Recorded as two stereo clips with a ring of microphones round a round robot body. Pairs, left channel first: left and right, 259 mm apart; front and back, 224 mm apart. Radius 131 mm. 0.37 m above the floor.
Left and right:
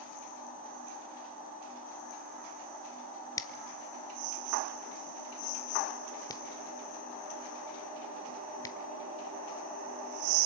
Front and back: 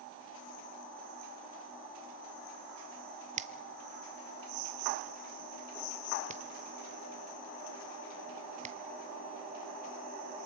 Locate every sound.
3.4 s a finger snap: 155° left, 0.9 m